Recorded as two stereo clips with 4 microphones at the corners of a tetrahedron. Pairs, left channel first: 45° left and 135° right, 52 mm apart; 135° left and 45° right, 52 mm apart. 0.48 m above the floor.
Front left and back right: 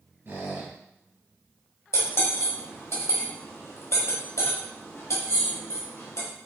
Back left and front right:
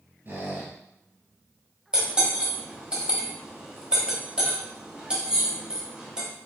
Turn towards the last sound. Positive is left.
turn(degrees=25)